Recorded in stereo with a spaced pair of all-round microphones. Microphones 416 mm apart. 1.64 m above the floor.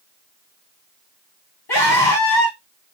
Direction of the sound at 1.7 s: 75° left (ahead or behind).